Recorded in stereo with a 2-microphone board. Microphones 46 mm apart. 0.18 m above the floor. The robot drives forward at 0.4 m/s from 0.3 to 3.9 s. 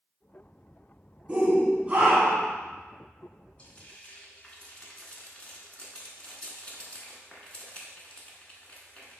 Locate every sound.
1.3 s a shout: 25° right (ahead or behind), 1.3 m; by 2.5 s 30° right (ahead or behind), 1.2 m
3.6 s frying: 25° left (ahead or behind), 0.9 m; by 9.2 s 20° left (ahead or behind), 0.9 m